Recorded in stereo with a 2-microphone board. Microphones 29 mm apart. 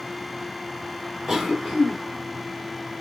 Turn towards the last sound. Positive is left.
turn(degrees=-5)  # may be behind; listen again after turning